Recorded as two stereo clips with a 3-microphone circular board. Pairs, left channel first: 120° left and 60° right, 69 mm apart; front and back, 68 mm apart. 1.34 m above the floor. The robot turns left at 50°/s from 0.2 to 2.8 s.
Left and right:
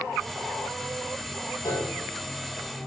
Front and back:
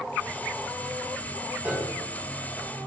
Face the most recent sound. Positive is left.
turn(degrees=70)